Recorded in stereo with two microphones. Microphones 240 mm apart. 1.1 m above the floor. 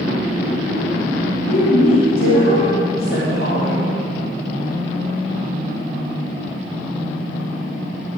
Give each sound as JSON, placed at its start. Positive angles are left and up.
{"t": 1.5, "sound": "a woman speaking", "side_deg": 60, "distance_m": 2.5}